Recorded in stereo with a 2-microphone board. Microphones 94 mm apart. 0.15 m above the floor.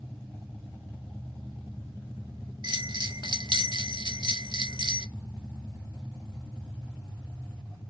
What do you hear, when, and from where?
2.6 s a bell: 60° right (ahead or behind), 0.6 m